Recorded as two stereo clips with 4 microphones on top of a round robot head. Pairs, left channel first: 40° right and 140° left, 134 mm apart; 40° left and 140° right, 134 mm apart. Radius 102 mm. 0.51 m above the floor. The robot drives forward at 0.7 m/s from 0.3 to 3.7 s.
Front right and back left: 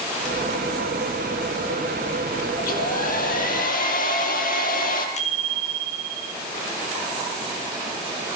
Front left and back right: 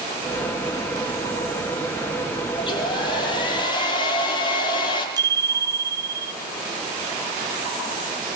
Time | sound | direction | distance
2.6 | a hair dryer | 15° right | 6 m
5.2 | a bicycle bell | 75° right | 8.5 m